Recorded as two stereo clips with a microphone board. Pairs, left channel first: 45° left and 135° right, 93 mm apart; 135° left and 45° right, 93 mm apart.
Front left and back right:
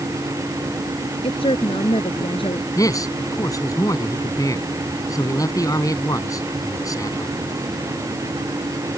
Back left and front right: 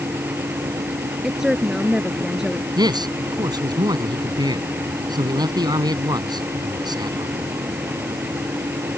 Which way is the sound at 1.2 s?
40° left.